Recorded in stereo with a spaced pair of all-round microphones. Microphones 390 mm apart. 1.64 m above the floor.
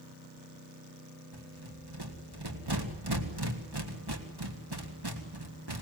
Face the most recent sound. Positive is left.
turn(degrees=-80)